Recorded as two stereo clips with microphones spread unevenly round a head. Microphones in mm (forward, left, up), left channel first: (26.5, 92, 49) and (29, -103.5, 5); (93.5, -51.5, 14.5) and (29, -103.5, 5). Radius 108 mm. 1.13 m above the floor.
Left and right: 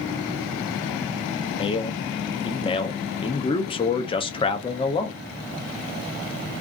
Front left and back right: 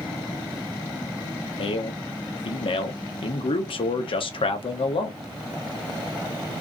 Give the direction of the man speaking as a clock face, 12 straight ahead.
11 o'clock.